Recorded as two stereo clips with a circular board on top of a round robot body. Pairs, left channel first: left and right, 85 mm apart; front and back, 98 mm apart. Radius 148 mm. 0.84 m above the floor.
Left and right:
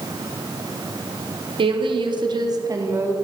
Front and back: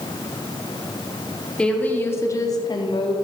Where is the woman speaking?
80° right, 2.5 m; by 3.1 s 30° right, 2 m.